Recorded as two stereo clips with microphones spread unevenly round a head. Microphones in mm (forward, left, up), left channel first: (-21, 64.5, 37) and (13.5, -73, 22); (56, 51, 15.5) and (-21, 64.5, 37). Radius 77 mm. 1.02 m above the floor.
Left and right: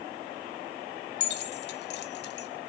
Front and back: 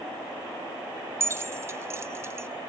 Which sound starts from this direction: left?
Keys jangling, at 1.2 s.